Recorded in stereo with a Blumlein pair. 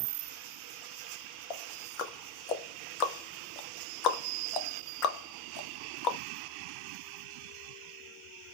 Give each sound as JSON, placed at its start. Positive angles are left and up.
{"t": 1.5, "sound": "ticking", "azimuth_deg": 35, "distance_m": 0.6}